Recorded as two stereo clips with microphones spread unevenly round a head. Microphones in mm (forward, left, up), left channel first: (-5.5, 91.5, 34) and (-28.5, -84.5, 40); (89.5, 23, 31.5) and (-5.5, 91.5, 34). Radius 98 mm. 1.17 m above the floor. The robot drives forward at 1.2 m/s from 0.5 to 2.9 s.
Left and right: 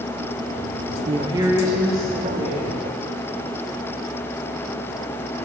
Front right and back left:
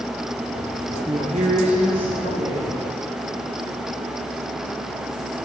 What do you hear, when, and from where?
1.1 s a woman speaking: 155° right, 0.5 m; by 2.8 s 175° right, 2.5 m